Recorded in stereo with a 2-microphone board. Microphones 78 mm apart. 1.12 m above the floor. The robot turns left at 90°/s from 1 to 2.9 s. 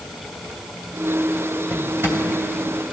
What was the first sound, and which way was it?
A drawer, 10° right (ahead or behind).